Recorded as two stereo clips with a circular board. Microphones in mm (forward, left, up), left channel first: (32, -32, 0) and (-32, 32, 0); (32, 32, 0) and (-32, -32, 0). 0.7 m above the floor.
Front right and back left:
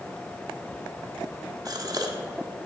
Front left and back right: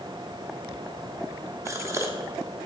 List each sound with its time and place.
1.6 s a gasp: 175° left, 1.3 m